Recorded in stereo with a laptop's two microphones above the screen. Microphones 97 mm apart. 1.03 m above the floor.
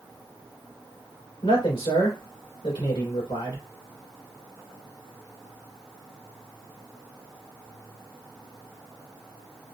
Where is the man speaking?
85° left, 2.5 m.